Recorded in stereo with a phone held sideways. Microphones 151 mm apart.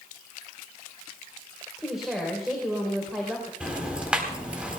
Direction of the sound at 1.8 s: Centre (ahead or behind).